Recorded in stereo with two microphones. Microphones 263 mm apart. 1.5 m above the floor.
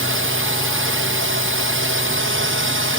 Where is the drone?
50° right (ahead or behind).